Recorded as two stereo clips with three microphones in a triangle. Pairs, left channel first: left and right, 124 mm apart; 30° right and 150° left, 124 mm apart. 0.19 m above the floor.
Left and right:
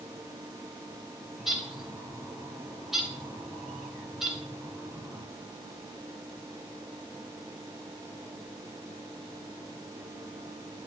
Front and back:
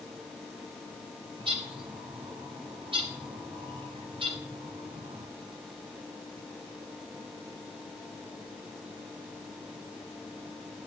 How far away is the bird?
About 2.5 m.